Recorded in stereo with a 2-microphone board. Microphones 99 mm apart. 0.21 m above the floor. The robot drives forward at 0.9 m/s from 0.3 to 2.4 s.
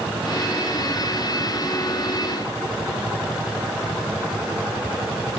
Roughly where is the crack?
I don't hear a crack.